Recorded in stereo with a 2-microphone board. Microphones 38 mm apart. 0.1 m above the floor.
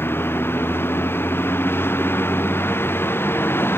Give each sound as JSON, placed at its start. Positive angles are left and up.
{"t": 0.0, "sound": "a vehicle", "side_deg": 85}